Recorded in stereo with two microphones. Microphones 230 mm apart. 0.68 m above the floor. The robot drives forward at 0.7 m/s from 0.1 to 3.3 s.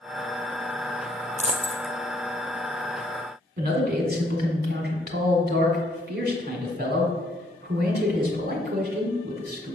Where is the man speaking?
45° right (ahead or behind), 1.7 m.